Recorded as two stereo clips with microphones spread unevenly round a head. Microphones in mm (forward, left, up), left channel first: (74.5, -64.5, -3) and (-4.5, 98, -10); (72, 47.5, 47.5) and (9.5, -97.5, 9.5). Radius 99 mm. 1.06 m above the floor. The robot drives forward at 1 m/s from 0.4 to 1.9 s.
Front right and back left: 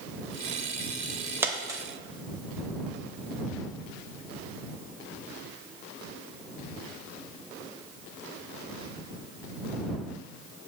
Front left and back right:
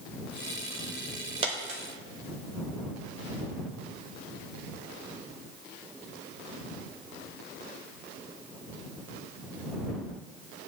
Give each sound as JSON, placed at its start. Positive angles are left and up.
{"t": 1.4, "sound": "a dropped coin", "azimuth_deg": -170, "distance_m": 0.8}